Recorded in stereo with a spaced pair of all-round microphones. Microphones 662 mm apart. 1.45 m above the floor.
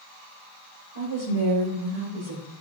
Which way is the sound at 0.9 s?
55° right (ahead or behind).